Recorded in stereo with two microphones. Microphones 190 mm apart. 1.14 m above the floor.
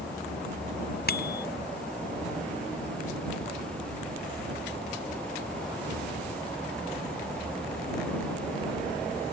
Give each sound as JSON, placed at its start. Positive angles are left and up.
{"t": 1.1, "sound": "a bicycle bell", "side_deg": 55}